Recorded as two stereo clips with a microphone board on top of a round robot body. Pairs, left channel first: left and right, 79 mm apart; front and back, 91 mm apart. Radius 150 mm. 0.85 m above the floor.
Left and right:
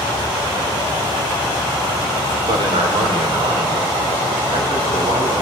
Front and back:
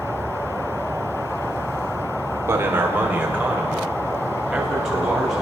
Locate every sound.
2.5 s a man speaking: 115° right, 3.5 m; by 5.4 s 95° right, 8 m